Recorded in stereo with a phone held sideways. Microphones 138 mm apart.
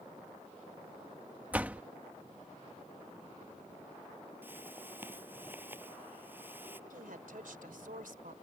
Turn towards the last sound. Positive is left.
turn(degrees=-80)